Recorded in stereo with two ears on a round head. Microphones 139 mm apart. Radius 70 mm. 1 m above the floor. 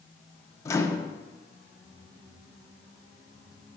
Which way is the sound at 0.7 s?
20° left (ahead or behind).